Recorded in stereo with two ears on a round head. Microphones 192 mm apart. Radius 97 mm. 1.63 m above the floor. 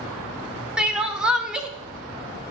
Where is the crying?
5° right (ahead or behind), 0.7 m.